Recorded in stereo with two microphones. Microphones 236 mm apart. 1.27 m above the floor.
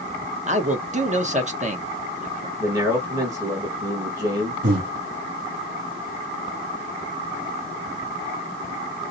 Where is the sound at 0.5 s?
30° right (ahead or behind), 1.0 m.